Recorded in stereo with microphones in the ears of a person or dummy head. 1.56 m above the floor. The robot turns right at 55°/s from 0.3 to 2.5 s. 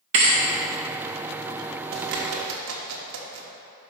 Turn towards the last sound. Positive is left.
turn(degrees=-80)